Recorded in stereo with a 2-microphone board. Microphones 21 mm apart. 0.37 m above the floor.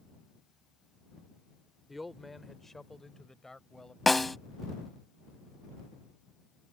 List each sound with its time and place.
1.9 s a man speaking: 5° right (ahead or behind); by 4.0 s 35° left (ahead or behind)
4.1 s a snare drum: 10° left (ahead or behind)